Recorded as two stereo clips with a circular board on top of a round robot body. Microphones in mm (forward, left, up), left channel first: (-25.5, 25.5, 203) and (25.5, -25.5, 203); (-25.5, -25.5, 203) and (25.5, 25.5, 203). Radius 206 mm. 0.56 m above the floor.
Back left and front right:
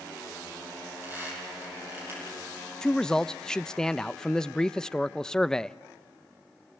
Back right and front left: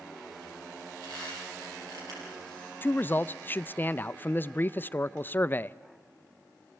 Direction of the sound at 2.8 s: 155° right.